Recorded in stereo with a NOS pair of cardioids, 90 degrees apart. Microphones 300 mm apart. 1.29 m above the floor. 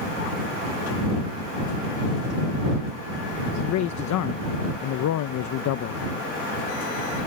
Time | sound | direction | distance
3.6 | a man speaking | 70° left | ?